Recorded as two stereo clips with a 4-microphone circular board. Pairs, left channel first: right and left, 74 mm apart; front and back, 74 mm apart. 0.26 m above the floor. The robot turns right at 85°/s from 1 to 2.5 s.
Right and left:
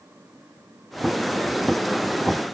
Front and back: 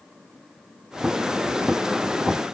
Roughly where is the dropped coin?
I don't hear a dropped coin.